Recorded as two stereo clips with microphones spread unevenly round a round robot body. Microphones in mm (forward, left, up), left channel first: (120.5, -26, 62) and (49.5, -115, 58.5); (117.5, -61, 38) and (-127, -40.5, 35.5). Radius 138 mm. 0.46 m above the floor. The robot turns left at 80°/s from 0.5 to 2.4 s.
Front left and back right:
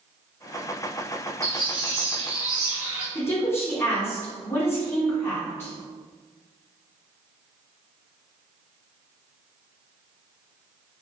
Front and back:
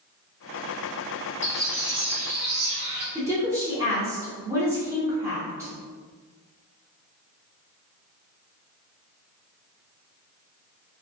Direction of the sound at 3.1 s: 105° left.